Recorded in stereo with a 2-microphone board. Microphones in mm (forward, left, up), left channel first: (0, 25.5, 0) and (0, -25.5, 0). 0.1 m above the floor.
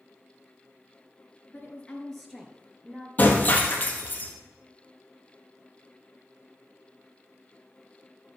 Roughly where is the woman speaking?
Left.